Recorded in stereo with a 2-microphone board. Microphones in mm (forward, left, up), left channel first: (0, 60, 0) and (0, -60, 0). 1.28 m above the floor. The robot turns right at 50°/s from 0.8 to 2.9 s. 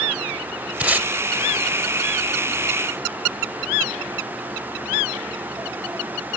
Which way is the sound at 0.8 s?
10° right (ahead or behind).